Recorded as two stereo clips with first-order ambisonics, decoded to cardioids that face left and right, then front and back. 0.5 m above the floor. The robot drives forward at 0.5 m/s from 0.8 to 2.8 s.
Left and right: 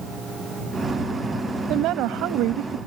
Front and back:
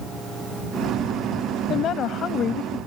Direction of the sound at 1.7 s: 50° right.